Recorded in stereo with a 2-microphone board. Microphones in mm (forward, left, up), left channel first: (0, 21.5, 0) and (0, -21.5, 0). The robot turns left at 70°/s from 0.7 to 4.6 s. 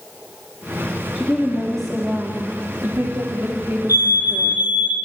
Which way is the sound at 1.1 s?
45° left.